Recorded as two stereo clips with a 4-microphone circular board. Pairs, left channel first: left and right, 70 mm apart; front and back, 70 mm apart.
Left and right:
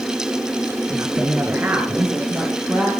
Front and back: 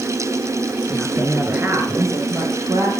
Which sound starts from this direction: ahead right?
A woman speaking, at 0.9 s.